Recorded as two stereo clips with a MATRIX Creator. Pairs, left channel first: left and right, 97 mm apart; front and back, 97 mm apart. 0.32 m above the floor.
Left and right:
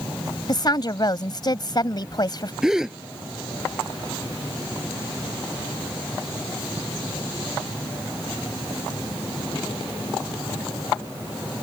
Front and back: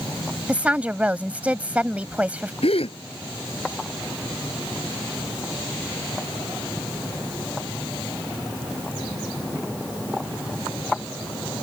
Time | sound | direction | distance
0.5 | a woman speaking | 110° left | ?
2.6 | a gasp | 5° right | ?